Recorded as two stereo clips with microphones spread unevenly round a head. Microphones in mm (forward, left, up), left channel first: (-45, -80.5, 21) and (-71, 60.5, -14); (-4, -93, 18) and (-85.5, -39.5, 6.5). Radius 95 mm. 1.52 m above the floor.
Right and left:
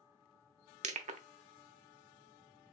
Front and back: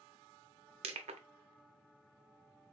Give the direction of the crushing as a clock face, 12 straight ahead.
8 o'clock.